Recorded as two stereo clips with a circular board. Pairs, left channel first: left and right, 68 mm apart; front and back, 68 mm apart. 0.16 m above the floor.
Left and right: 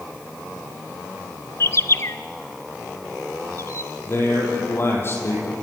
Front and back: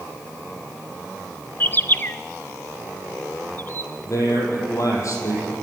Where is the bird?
50° left, 0.8 m.